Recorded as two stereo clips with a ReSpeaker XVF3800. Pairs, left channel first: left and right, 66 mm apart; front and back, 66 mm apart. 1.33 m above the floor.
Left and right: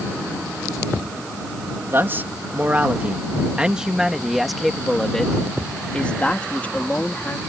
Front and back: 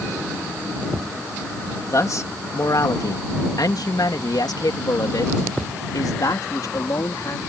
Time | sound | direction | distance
1.9 | a man speaking | 35° right | ?